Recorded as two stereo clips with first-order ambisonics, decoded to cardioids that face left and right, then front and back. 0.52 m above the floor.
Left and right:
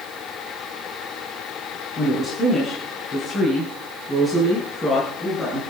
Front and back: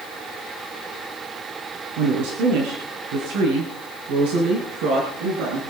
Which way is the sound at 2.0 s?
160° left.